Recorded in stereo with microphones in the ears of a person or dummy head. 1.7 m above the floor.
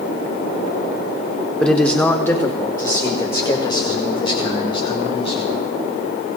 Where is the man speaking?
5° left (ahead or behind), 1.4 m; by 5.5 s 35° left (ahead or behind), 3.5 m.